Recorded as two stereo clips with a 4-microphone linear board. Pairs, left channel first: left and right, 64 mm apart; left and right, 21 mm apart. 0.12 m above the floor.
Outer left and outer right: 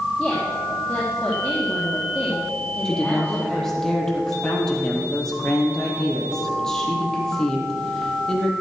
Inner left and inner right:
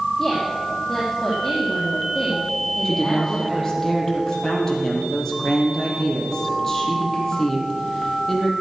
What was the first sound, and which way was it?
A woman speaking, 5° left (ahead or behind).